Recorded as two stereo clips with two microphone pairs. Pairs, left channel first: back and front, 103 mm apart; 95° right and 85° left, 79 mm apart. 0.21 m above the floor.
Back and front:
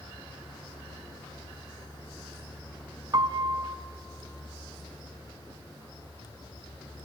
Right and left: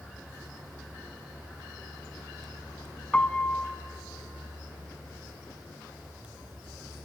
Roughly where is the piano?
Ahead right.